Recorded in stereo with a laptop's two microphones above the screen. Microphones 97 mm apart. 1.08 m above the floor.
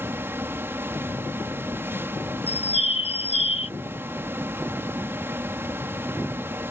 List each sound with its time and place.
0.0 s a fan: 25° right (ahead or behind)
2.5 s a bird: 85° left